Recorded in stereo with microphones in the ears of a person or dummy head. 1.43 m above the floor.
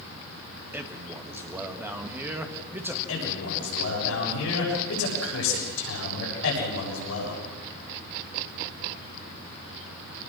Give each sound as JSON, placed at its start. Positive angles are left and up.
{"t": 0.7, "sound": "a man speaking", "side_deg": -10, "distance_m": 1.6}
{"t": 3.1, "sound": "a man speaking", "side_deg": 80, "distance_m": 6.5}